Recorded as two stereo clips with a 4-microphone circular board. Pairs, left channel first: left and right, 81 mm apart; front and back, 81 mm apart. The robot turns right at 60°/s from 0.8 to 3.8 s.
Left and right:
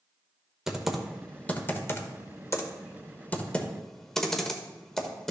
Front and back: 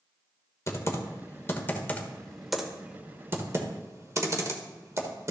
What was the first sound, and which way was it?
Typing on a keyboard, 10° right.